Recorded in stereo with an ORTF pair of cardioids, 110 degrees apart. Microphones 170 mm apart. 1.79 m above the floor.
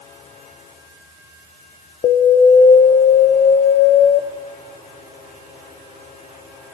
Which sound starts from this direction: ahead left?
An alarm, at 2.0 s.